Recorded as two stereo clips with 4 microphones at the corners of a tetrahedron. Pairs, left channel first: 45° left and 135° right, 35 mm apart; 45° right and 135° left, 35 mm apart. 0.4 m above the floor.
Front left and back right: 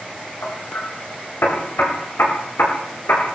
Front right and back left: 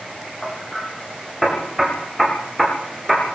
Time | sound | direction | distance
0.4 | hammering | 45° left | 8 m